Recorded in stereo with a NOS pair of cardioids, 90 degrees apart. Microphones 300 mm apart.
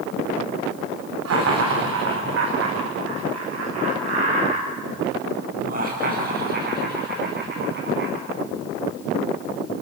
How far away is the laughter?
About 3 m.